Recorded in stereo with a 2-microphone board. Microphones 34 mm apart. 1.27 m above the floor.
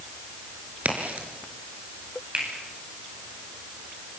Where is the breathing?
I don't hear breathing.